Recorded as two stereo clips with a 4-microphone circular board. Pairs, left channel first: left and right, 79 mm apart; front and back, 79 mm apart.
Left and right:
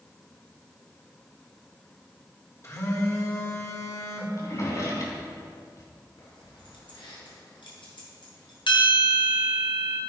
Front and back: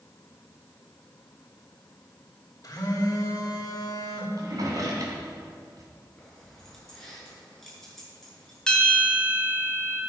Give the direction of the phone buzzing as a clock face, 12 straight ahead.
11 o'clock.